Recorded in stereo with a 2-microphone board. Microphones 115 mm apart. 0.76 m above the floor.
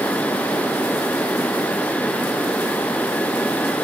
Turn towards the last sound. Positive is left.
No sound to turn to.